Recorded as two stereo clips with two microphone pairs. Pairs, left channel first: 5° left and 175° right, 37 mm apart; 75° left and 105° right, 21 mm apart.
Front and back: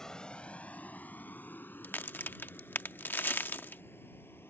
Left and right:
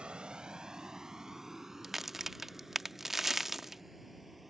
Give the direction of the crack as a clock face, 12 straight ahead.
1 o'clock.